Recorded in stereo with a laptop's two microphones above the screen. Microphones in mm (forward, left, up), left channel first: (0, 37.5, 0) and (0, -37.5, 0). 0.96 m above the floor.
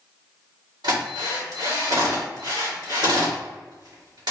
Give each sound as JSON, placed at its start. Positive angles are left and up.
{"t": 0.8, "sound": "a drill", "side_deg": -65, "distance_m": 2.0}